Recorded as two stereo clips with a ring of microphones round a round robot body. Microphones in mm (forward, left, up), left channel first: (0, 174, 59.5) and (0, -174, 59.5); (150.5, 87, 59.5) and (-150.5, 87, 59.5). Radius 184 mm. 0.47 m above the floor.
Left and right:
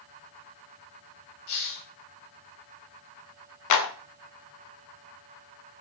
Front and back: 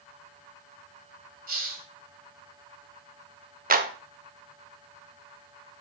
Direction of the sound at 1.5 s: 120° left.